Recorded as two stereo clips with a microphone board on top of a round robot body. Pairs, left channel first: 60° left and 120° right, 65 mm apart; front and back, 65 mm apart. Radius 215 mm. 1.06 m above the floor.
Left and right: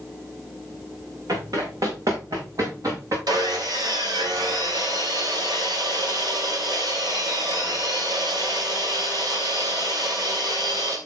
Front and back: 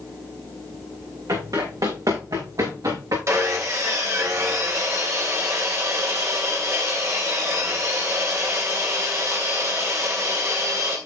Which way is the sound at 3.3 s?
135° right.